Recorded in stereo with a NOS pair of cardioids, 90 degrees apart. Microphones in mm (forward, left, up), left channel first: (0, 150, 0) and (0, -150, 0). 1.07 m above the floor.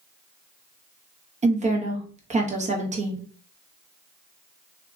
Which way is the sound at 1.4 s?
25° right.